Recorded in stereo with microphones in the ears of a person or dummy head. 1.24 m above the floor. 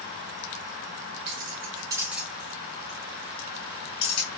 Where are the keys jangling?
55° right (ahead or behind), 0.9 m; by 4.3 s 40° left (ahead or behind), 2.0 m.